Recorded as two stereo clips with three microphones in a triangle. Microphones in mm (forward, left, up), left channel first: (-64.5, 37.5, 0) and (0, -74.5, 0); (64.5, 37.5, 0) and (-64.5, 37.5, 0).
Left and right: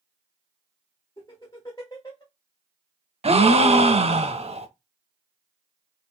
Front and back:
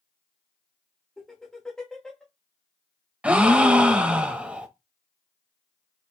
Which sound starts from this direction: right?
A gasp, at 3.2 s.